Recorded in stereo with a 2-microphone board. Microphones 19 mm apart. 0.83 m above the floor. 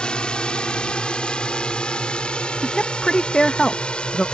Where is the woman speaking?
35° left (ahead or behind).